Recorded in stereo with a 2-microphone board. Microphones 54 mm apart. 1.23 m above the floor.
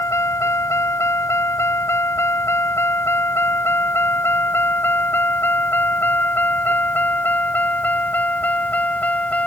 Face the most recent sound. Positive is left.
turn(degrees=30)  # may be behind; listen again after turning